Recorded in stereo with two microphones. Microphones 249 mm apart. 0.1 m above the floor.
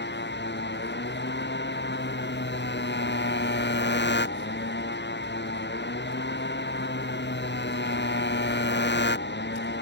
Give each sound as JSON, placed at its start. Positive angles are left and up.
{"t": 0.0, "sound": "a motorcycle", "side_deg": 45}